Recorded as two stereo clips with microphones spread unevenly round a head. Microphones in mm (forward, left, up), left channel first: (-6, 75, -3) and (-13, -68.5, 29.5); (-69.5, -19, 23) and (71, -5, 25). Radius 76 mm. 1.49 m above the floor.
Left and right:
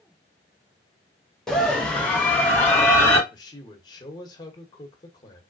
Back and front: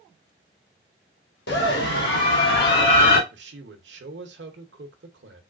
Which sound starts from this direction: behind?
A scream, at 1.5 s.